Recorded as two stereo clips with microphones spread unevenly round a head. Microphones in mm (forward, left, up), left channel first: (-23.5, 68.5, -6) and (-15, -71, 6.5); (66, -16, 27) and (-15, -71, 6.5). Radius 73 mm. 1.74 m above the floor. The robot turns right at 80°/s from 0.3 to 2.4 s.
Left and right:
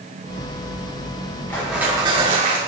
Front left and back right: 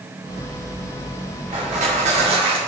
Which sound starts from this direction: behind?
Crushing, at 1.5 s.